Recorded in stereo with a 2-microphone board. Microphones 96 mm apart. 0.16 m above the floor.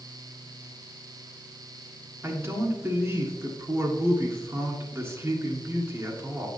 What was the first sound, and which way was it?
A man speaking, 25° right (ahead or behind).